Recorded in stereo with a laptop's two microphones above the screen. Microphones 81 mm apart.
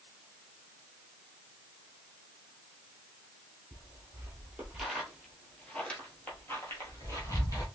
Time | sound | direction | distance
3.7 | footsteps | 30° right (ahead or behind) | 1.6 m